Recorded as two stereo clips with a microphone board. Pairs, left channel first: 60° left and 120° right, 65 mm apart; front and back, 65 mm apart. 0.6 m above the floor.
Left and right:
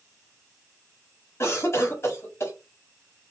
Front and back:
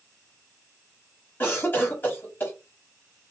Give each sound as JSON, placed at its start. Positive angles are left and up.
{"t": 1.4, "sound": "a cough", "azimuth_deg": 45, "distance_m": 1.3}